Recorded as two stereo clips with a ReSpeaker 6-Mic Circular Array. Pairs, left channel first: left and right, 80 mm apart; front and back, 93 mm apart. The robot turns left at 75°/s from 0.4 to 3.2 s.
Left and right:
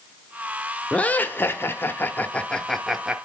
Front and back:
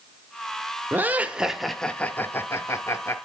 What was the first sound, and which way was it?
Laughter, 145° left.